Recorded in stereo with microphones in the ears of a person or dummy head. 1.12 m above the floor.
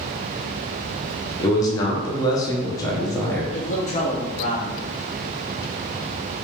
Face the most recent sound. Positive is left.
turn(degrees=35)  # may be behind; listen again after turning